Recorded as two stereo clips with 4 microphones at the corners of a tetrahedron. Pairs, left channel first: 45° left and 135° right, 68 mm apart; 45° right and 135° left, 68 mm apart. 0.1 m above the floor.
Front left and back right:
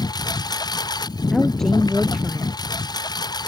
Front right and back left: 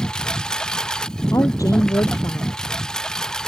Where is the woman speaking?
40° right.